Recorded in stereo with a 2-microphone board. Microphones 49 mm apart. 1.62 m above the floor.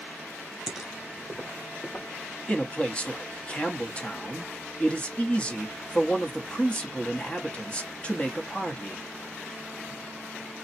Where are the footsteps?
5° right (ahead or behind), 1.6 m; by 2.0 s 30° left (ahead or behind), 2.5 m.